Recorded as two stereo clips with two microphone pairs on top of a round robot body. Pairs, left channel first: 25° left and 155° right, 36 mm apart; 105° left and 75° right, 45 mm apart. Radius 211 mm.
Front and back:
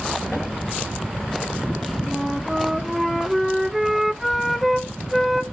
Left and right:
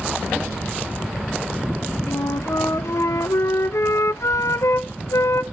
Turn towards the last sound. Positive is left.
turn(degrees=115)